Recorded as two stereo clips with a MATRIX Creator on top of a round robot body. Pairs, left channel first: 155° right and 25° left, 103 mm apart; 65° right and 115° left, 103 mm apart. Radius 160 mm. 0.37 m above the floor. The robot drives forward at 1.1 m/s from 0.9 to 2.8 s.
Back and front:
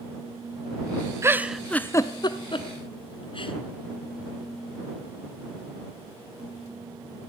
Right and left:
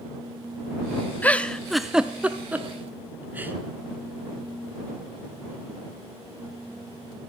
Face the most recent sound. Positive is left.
turn(degrees=-175)